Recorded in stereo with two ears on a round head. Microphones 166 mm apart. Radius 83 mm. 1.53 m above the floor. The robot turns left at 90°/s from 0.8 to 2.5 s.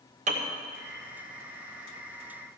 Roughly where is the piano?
Right.